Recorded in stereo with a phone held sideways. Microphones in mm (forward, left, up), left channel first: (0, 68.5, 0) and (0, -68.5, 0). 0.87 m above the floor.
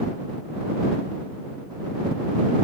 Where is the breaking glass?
No breaking glass in this recording.